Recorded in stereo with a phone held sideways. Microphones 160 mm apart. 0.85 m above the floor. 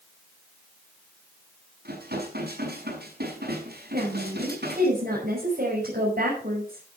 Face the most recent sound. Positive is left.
turn(degrees=-65)  # may be behind; listen again after turning